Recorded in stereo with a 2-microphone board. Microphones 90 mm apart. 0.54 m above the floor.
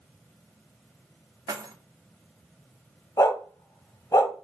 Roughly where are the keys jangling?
Right.